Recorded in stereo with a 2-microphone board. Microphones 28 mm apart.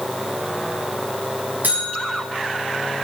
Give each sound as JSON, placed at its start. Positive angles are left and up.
{"t": 1.6, "sound": "a buzzer", "side_deg": -80, "distance_m": 5.5}